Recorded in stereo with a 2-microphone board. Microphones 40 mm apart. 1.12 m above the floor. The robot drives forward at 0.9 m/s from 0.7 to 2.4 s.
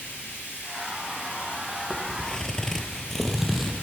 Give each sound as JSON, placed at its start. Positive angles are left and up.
{"t": 0.0, "sound": "running water", "side_deg": 60, "distance_m": 6.0}
{"t": 1.9, "sound": "footsteps", "side_deg": 15, "distance_m": 1.7}